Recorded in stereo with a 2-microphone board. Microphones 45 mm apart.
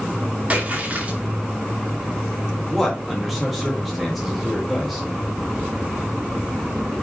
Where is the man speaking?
Centre (ahead or behind), 3 m.